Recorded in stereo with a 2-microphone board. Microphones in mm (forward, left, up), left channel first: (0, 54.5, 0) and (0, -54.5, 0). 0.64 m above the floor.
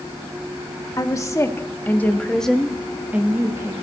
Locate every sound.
1.0 s a woman speaking: 30° left (ahead or behind), 1.4 m; by 3.7 s 25° right (ahead or behind), 1.1 m